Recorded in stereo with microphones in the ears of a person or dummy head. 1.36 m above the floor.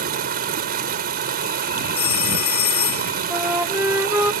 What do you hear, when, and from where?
0.0 s running water: 50° right (ahead or behind)
2.0 s a phone ringing: 55° left (ahead or behind)
3.3 s a flute: 10° right (ahead or behind)